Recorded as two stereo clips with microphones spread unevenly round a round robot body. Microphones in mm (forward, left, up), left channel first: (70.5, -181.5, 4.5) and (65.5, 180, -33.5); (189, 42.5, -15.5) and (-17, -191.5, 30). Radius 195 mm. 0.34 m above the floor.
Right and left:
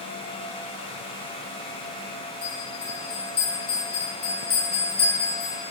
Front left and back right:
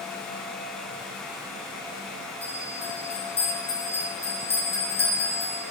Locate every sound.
2.4 s a bell: 25° right, 5 m